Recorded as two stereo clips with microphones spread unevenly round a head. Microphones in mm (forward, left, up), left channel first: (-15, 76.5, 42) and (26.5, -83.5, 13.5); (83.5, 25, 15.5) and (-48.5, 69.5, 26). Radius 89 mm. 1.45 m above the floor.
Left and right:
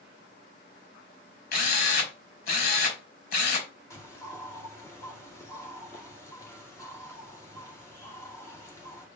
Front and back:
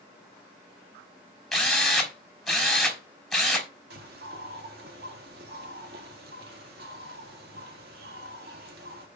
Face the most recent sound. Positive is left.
turn(degrees=175)